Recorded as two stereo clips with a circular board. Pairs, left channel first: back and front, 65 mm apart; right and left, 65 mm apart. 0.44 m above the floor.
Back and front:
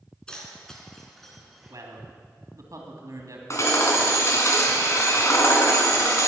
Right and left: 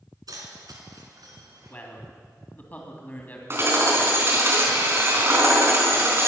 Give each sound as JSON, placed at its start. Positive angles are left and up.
{"t": 0.3, "sound": "keys jangling", "azimuth_deg": 100, "distance_m": 3.0}
{"t": 1.7, "sound": "a man speaking", "azimuth_deg": -30, "distance_m": 3.0}
{"t": 3.5, "sound": "hammering", "azimuth_deg": 140, "distance_m": 3.5}